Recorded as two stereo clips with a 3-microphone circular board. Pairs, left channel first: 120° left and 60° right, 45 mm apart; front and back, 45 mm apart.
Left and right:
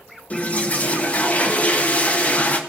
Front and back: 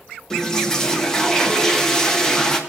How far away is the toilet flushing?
About 1.2 m.